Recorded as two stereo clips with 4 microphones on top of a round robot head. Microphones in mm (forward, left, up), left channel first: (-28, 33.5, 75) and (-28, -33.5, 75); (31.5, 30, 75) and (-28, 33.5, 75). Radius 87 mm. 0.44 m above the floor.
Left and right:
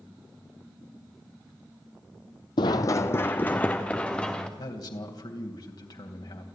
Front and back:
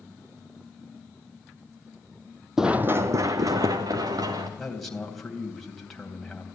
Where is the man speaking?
85° left, 3 m.